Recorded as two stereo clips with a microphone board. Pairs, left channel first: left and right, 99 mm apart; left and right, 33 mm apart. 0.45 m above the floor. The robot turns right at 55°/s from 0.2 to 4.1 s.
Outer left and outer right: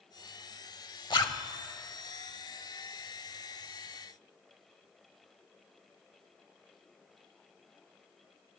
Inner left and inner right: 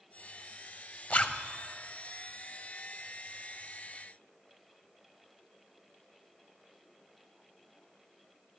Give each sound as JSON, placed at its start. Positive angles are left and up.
{"t": 1.1, "sound": "a zipper", "side_deg": 50, "distance_m": 0.7}